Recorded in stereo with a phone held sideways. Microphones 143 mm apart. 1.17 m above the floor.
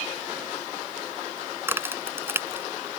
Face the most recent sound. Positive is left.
turn(degrees=-15)  # may be behind; listen again after turning